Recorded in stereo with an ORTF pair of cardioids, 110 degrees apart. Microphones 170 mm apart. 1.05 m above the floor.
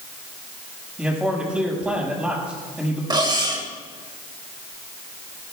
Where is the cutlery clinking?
25° right, 2.5 m.